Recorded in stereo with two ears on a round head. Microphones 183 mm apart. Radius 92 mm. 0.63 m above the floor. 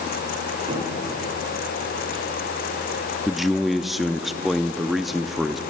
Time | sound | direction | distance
0.7 | a cupboard door | 20° right (ahead or behind) | 4 m
3.3 | a man speaking | centre (ahead or behind) | 0.5 m